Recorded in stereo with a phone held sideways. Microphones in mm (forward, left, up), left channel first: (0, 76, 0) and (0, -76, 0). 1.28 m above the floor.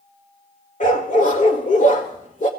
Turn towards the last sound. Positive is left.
turn(degrees=60)  # may be behind; listen again after turning